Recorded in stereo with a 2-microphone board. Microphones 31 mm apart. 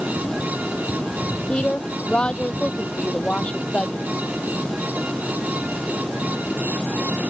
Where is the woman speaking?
30° left (ahead or behind).